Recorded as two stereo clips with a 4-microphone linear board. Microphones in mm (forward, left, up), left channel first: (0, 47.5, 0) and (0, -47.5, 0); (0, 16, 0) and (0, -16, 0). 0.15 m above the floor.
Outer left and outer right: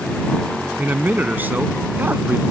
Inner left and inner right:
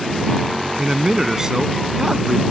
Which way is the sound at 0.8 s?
20° right (ahead or behind).